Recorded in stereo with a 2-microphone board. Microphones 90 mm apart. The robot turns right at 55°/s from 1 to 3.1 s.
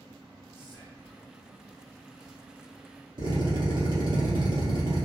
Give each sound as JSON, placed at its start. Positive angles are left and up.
{"t": 0.5, "sound": "whispering", "side_deg": -10, "distance_m": 1.2}
{"t": 3.2, "sound": "a drill", "side_deg": -55, "distance_m": 1.5}